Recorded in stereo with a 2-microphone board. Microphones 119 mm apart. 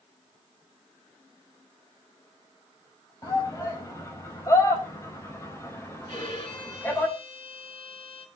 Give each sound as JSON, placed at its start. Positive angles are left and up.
{"t": 3.2, "sound": "a shout", "side_deg": 30, "distance_m": 6.0}
{"t": 6.1, "sound": "a violin", "side_deg": 45, "distance_m": 2.0}